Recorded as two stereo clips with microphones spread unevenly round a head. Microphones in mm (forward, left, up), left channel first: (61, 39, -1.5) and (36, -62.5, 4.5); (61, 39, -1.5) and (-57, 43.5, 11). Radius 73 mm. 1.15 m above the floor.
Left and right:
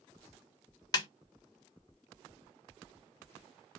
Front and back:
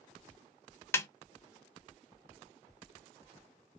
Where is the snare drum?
50° left, 0.5 m.